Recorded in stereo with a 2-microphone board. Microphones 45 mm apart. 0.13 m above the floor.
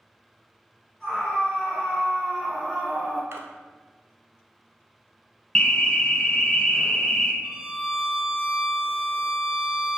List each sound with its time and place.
1.0 s a scream: 5° left (ahead or behind), 1.7 m; by 3.2 s 10° right (ahead or behind), 1.4 m
3.3 s a splash: 65° right (ahead or behind), 0.7 m
5.5 s an alarm: 20° left (ahead or behind), 0.8 m
7.4 s a violin: 30° right (ahead or behind), 0.9 m